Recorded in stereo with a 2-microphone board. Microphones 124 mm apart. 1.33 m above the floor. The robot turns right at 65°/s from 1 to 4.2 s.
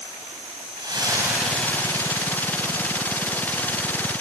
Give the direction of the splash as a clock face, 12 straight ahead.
1 o'clock.